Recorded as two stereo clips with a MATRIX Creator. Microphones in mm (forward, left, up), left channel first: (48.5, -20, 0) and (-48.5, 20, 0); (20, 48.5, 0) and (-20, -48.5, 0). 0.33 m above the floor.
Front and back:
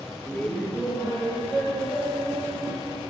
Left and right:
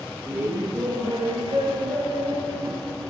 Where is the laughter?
75° right, 1.0 m; by 3.0 s 95° right, 3 m.